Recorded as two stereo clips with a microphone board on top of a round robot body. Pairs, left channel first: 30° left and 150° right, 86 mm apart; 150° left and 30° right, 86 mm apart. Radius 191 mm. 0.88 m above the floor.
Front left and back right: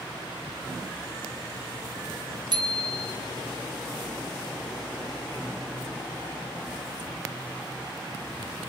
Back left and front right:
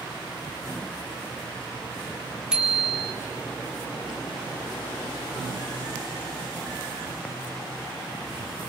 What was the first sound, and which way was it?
A bicycle bell, 110° right.